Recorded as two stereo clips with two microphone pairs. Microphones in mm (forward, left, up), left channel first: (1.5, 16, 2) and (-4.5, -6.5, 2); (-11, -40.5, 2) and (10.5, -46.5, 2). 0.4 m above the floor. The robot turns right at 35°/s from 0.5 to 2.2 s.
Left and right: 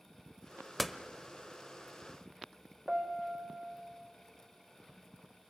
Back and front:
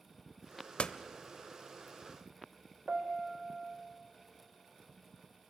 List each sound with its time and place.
0.8 s a door slam: 170° left, 0.9 m; by 1.0 s 175° left, 0.9 m
2.9 s a piano: 55° right, 1.7 m